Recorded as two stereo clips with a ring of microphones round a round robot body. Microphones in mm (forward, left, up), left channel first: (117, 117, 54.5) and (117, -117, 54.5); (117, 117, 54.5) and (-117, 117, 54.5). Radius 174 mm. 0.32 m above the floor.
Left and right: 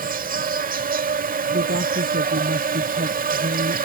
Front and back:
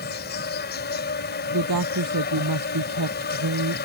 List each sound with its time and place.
0.0 s an insect: 40° right
1.5 s a woman speaking: 150° right